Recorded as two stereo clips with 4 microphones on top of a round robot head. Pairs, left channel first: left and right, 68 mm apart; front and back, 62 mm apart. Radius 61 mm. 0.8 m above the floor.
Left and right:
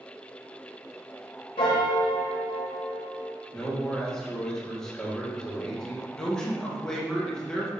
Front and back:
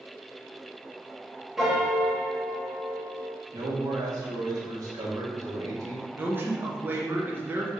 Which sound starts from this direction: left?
A piano, at 1.6 s.